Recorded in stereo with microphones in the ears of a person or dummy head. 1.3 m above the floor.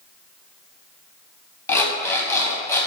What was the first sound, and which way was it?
An alarm clock, 10° left (ahead or behind).